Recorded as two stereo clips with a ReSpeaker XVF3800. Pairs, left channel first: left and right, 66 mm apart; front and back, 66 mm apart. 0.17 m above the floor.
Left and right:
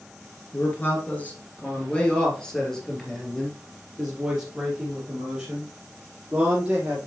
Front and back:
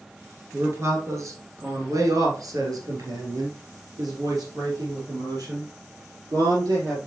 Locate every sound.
0.5 s a man speaking: 140° left, 2.5 m; by 7.0 s 165° right, 5.5 m